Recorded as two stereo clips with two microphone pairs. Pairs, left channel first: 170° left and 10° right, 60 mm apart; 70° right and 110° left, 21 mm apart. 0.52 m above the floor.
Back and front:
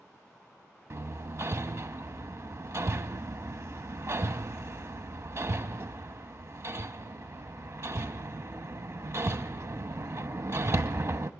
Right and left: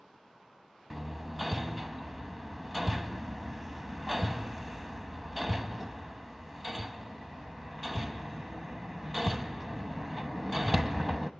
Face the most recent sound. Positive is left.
turn(degrees=25)